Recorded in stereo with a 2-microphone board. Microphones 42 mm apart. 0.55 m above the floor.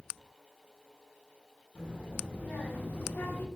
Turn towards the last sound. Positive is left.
turn(degrees=50)  # may be behind; listen again after turning